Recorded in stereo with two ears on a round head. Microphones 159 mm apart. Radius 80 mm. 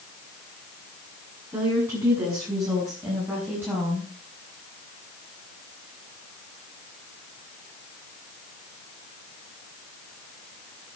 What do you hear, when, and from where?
1.5 s a woman speaking: 20° right (ahead or behind), 7 m; by 4.1 s 10° right (ahead or behind), 5.5 m